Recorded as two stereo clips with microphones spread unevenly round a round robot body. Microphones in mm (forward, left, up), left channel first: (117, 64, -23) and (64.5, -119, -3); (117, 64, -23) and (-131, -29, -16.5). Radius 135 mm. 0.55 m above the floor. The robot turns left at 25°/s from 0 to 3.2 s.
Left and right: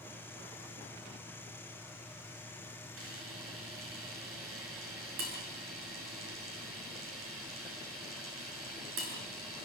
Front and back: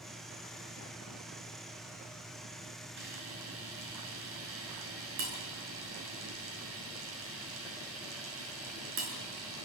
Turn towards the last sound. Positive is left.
turn(degrees=-115)